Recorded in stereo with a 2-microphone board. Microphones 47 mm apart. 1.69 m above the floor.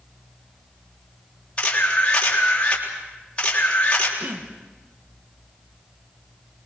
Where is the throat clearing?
40° right (ahead or behind), 1.3 m.